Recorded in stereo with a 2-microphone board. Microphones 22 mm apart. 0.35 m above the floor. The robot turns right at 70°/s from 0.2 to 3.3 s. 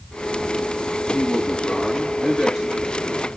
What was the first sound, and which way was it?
A man speaking, 90° left.